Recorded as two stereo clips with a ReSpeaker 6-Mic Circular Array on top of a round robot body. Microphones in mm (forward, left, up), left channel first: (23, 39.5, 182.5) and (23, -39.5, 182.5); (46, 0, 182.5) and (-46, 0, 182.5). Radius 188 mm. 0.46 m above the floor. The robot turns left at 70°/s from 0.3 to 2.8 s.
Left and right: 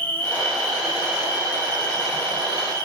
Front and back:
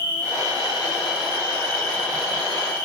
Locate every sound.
0.0 s an insect: 25° left, 6 m; by 2.9 s 150° right, 6 m